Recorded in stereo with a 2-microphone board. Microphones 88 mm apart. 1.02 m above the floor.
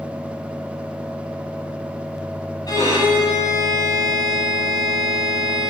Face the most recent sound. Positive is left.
turn(degrees=40)  # may be behind; listen again after turning